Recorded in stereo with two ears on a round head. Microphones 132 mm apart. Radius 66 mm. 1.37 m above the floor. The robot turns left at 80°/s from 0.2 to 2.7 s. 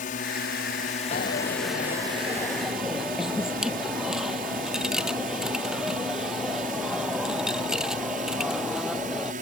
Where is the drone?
60° left (ahead or behind); by 9.4 s 60° right (ahead or behind).